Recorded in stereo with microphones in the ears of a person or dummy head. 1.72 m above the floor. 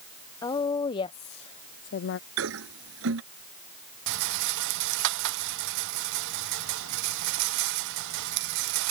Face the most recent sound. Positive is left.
turn(degrees=-75)  # may be behind; listen again after turning